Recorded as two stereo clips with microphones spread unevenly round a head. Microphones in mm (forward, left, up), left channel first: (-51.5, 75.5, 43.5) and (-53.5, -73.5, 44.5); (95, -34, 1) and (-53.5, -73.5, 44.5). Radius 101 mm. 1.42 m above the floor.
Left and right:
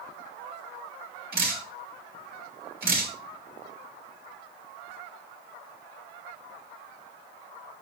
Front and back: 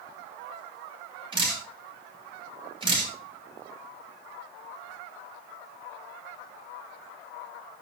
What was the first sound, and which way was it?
Dripping, 105° right.